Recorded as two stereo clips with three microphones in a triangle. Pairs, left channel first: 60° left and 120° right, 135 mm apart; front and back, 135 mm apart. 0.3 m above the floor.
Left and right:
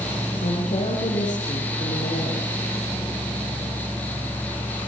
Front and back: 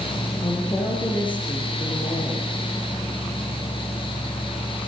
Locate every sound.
0.4 s a woman speaking: 55° left, 7 m